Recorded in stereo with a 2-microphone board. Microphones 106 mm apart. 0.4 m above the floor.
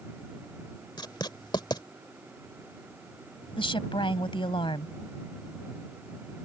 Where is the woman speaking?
55° left (ahead or behind).